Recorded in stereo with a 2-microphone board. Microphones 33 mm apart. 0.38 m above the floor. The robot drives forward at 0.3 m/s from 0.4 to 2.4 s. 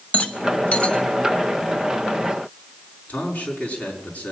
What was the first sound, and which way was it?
A rattle, 45° left (ahead or behind).